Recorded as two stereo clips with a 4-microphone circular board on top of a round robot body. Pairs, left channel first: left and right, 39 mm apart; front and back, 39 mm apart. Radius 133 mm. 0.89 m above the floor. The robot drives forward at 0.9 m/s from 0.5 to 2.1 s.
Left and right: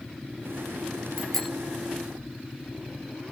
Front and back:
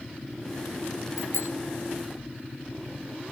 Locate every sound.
1.2 s a bicycle bell: 5° left; by 1.5 s 10° left